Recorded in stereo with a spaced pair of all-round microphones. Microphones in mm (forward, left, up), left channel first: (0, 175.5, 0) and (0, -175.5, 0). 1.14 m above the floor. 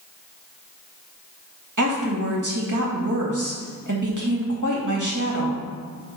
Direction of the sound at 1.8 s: 60° right (ahead or behind).